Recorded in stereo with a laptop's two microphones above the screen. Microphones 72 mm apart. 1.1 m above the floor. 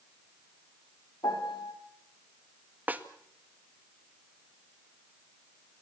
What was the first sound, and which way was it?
A piano, 75° left (ahead or behind).